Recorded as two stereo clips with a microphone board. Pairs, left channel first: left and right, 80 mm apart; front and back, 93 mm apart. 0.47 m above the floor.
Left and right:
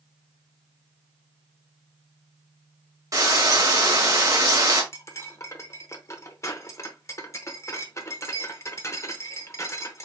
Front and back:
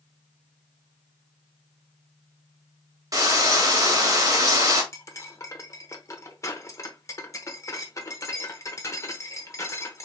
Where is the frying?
130° right, 1.6 m.